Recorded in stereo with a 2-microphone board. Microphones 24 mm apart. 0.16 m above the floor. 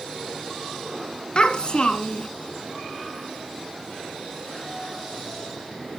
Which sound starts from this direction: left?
A child speaking, at 1.4 s.